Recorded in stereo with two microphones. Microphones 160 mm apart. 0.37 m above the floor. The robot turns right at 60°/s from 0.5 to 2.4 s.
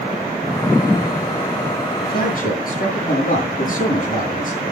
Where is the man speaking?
80° left, 8 m; by 4.6 s 60° left (ahead or behind), 8 m.